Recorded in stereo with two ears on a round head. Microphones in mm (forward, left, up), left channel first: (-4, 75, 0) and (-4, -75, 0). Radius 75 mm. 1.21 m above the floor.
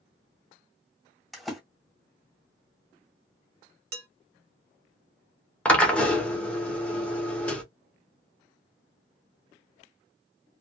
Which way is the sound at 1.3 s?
Centre (ahead or behind).